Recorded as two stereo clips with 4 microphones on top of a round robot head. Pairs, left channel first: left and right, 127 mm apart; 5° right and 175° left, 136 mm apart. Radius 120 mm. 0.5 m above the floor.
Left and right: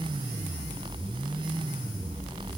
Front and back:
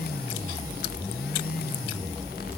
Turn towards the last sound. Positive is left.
No sound to turn to.